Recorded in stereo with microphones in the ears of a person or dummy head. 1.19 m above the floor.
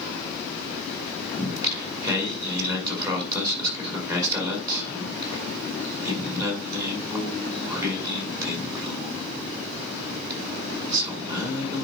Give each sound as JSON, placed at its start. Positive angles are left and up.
{"t": 1.4, "sound": "singing", "side_deg": -20, "distance_m": 6.0}